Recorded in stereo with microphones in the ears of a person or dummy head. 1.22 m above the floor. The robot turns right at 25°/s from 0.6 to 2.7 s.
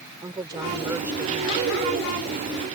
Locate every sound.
0.2 s a woman speaking: 20° right (ahead or behind); by 1.7 s 10° left (ahead or behind)